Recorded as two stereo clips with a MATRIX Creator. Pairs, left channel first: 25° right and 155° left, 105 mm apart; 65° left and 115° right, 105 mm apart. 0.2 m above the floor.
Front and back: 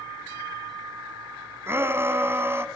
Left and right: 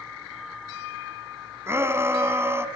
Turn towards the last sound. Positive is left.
turn(degrees=-155)